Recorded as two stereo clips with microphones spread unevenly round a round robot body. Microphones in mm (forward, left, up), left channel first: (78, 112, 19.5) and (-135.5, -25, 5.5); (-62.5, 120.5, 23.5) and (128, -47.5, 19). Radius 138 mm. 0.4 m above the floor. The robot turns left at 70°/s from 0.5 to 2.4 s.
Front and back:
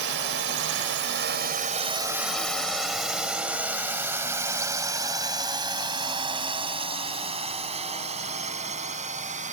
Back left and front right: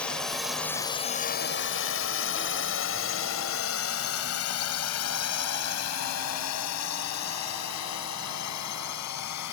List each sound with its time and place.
0.0 s a drone: 135° right; by 9.5 s 155° left